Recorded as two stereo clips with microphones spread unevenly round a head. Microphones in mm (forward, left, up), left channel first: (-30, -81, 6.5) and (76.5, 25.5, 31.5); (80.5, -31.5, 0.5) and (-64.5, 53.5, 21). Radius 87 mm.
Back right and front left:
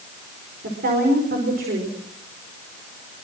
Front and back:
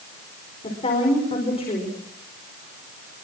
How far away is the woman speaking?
About 5 m.